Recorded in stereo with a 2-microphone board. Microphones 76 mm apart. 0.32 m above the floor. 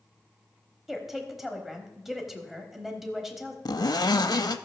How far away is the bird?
I don't hear a bird.